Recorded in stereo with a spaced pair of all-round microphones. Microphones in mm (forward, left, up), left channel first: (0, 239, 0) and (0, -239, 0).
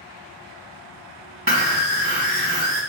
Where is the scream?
25° right (ahead or behind), 0.8 m.